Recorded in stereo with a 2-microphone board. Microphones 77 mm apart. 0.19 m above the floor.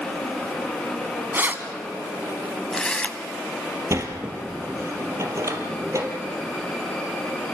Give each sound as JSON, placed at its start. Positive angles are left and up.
{"t": 1.3, "sound": "keys jangling", "side_deg": -30, "distance_m": 1.3}
{"t": 3.9, "sound": "a sliding door", "side_deg": -40, "distance_m": 2.5}